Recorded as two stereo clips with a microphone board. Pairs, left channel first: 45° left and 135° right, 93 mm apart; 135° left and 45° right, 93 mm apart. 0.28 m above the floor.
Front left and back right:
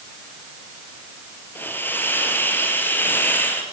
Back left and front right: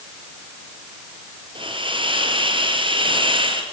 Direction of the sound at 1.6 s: 20° right.